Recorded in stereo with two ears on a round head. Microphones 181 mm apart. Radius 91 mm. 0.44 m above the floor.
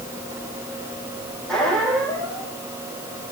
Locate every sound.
1.5 s a squeak: 5° left (ahead or behind), 4 m